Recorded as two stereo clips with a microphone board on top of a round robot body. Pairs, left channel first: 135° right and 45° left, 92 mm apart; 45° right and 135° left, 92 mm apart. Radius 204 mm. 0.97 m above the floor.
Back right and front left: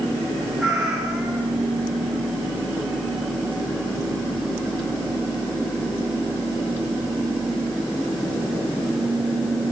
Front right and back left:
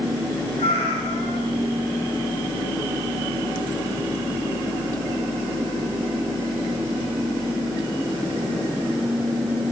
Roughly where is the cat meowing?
Ahead right.